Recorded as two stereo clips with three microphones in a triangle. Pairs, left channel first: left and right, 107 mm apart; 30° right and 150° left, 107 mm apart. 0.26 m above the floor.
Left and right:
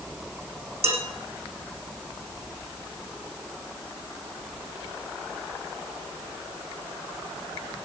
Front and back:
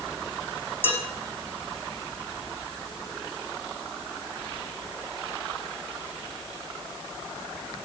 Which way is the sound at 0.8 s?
100° right.